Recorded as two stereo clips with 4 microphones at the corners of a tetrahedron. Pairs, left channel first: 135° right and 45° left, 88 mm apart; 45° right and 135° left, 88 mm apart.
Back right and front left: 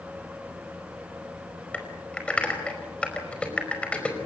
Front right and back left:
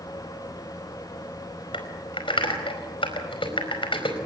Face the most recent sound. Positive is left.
turn(degrees=-60)